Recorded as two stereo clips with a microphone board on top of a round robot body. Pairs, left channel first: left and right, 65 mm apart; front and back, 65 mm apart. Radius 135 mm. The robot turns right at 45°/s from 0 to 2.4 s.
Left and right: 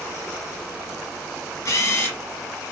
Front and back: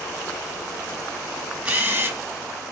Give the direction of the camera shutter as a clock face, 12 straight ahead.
8 o'clock.